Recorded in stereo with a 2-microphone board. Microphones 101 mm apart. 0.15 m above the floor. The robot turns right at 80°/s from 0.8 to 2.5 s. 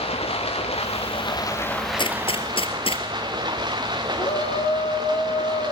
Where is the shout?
75° left (ahead or behind), 6 m.